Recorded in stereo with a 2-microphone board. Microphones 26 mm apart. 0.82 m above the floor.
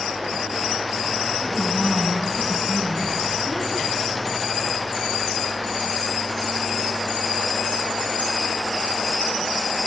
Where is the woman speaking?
30° left (ahead or behind), 7 m.